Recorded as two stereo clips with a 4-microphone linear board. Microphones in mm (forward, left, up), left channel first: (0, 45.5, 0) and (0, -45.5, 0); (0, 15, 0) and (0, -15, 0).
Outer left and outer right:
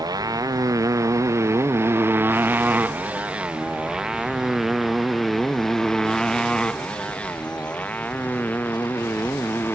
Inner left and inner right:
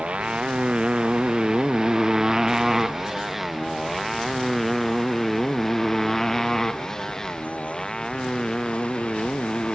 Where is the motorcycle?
45° right (ahead or behind); by 9.8 s 25° left (ahead or behind).